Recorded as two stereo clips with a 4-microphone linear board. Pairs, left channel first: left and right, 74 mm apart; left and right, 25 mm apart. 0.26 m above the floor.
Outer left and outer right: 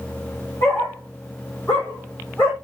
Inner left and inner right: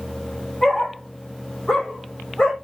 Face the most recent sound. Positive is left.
turn(degrees=20)  # may be behind; listen again after turning